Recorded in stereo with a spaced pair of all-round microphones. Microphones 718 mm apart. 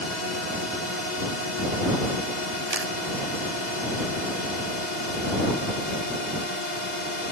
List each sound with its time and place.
0.0 s a drone: 75° left (ahead or behind)
2.7 s a camera shutter: 20° right (ahead or behind)